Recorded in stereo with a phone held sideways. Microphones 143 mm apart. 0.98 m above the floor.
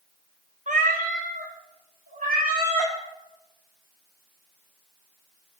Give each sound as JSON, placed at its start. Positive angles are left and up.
{"t": 0.7, "sound": "a cat meowing", "side_deg": -60, "distance_m": 0.7}